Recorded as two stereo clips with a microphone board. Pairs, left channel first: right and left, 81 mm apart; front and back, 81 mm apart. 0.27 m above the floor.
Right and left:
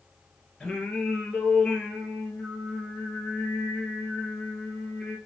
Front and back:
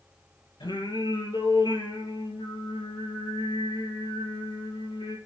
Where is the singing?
10° right, 3.5 m.